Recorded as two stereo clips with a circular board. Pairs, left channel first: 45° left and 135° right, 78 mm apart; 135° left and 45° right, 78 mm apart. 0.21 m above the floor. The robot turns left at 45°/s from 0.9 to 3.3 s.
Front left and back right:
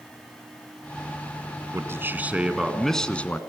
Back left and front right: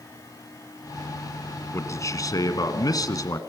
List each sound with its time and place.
1.7 s a man speaking: straight behind, 2 m; by 3.4 s 110° left, 2 m